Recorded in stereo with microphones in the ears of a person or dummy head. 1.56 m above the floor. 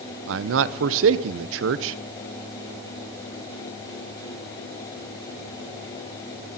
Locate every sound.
0.3 s a man speaking: 75° right (ahead or behind), 0.9 m